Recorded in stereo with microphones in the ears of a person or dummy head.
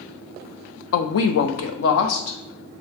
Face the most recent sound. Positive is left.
turn(degrees=70)  # may be behind; listen again after turning